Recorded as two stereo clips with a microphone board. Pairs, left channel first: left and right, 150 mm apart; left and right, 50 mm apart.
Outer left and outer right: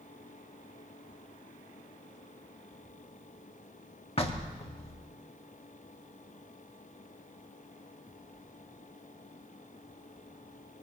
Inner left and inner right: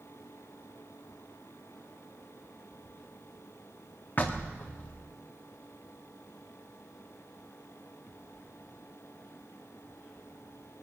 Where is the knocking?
40° left (ahead or behind), 1.5 m.